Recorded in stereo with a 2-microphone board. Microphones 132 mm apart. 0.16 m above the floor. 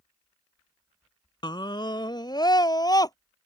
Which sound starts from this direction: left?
A scream, at 1.4 s.